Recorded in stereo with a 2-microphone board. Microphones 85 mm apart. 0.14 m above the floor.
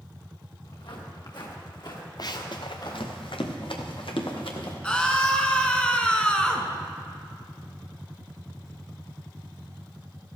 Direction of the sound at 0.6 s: 75° left (ahead or behind).